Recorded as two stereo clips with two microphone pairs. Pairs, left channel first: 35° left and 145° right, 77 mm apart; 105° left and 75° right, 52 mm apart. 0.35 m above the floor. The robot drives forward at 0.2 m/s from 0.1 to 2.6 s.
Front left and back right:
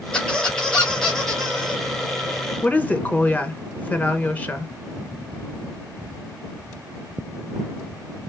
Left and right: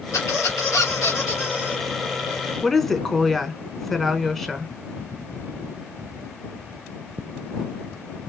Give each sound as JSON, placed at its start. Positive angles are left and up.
{"t": 0.1, "sound": "a squeak", "azimuth_deg": 110, "distance_m": 2.5}
{"t": 2.6, "sound": "a woman speaking", "azimuth_deg": 35, "distance_m": 0.9}